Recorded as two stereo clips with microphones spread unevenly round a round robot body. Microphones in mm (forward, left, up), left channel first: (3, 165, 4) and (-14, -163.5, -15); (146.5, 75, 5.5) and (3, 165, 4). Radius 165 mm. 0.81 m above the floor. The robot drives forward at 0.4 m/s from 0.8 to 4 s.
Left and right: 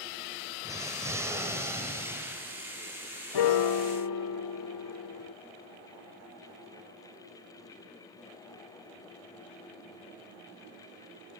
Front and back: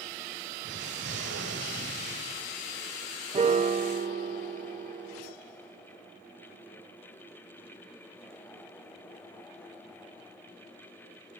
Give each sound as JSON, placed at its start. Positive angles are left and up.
{"t": 0.6, "sound": "an explosion", "azimuth_deg": -175, "distance_m": 1.4}
{"t": 3.3, "sound": "a piano", "azimuth_deg": 100, "distance_m": 0.8}